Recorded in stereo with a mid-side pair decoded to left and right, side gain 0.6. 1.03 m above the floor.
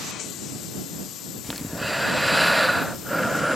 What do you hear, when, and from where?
1.4 s breathing: straight ahead